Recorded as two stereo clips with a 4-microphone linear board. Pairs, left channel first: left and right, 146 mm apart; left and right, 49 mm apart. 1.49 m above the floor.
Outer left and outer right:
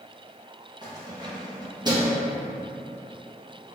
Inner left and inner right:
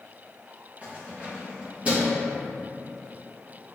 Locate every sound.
0.8 s keys jangling: 25° right (ahead or behind), 0.9 m